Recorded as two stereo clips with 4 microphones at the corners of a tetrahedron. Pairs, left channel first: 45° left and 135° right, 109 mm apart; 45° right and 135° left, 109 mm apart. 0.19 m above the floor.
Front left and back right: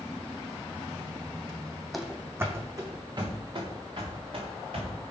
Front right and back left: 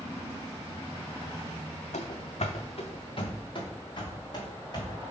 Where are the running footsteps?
45° right, 0.6 m; by 5.0 s 95° right, 2 m.